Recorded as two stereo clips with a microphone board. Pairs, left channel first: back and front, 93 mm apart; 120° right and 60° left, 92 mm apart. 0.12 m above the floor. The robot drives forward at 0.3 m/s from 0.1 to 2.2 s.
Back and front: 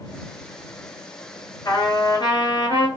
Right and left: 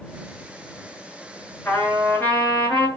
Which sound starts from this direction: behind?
A trumpet, at 1.6 s.